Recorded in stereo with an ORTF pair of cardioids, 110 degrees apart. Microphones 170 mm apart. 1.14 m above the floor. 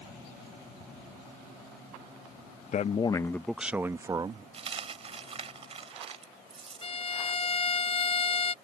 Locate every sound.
2.7 s a man speaking: 45° left; by 4.4 s 30° right
4.5 s a dropped coin: 35° right
6.8 s a violin: 35° left